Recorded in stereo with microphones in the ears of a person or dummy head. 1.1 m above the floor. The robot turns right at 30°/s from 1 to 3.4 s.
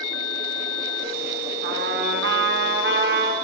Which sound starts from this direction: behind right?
A trumpet, at 1.6 s.